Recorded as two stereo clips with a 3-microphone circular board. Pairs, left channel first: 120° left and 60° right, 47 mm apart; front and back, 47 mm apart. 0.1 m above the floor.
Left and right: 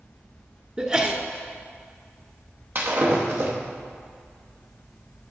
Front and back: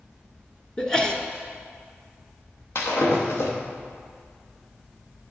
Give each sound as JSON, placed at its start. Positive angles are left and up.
{"t": 0.8, "sound": "a sneeze", "azimuth_deg": -45, "distance_m": 1.2}
{"t": 2.8, "sound": "breaking glass", "azimuth_deg": -25, "distance_m": 3.0}